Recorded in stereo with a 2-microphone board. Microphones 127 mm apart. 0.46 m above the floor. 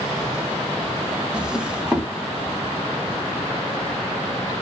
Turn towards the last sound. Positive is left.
turn(degrees=-10)  # may be behind; listen again after turning